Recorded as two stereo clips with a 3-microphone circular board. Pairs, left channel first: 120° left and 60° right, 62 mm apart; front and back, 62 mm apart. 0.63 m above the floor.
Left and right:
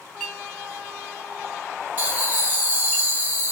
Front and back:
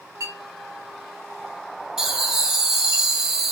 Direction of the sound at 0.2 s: 165° right.